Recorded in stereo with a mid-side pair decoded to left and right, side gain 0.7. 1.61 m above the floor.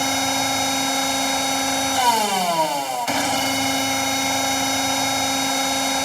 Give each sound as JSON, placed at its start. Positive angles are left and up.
{"t": 0.0, "sound": "a machine running", "azimuth_deg": 5}